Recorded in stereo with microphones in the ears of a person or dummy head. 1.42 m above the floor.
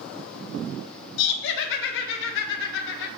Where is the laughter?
65° left (ahead or behind), 0.5 m.